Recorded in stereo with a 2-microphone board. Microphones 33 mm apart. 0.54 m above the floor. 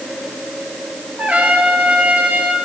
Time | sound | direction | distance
1.2 | a trumpet | 45° right (ahead or behind) | 1.5 m